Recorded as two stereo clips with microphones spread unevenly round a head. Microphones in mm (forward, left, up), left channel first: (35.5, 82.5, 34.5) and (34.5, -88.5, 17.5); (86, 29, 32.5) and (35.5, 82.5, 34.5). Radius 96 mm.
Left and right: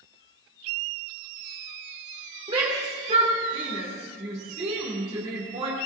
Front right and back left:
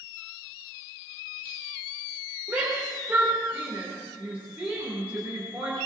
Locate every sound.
2.5 s a shout: 150° right, 2.5 m